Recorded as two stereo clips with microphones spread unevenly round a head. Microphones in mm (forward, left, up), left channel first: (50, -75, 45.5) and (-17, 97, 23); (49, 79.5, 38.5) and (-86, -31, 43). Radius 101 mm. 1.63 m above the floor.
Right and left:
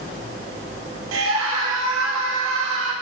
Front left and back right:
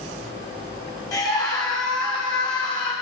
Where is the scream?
110° left, 4 m; by 2.9 s 100° left, 5 m.